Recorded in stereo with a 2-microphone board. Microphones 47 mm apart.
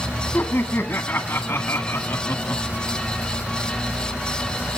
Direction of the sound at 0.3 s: 55° left (ahead or behind).